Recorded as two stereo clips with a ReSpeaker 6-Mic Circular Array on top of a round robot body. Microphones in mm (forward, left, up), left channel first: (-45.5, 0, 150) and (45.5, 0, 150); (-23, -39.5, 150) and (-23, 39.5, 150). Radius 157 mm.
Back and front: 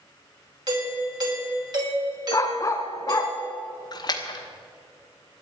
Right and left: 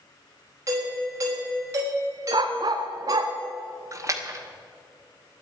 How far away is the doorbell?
About 5.5 m.